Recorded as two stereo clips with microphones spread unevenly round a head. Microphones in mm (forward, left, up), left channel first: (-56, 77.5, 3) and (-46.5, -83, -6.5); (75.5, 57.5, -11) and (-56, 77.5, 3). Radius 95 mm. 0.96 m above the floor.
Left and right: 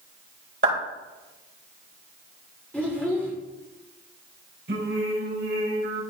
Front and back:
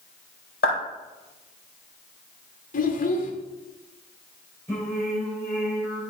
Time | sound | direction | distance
0.6 | a clap | 40° right | 4.5 m
2.7 | a child speaking | 10° left | 1.7 m
4.7 | singing | 90° right | 3.5 m